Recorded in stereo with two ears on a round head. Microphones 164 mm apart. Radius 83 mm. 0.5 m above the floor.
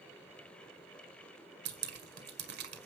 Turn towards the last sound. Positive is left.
turn(degrees=-65)  # may be behind; listen again after turning